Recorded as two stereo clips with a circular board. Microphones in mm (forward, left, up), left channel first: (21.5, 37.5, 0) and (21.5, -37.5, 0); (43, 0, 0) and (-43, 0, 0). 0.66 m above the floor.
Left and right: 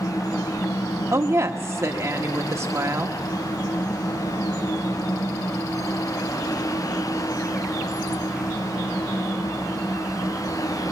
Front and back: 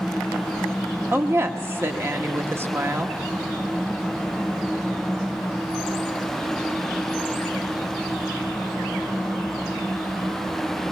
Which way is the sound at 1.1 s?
130° right.